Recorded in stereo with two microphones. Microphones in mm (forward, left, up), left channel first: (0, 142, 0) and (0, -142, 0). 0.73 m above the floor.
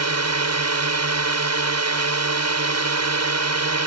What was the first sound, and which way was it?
A drone, 65° right (ahead or behind).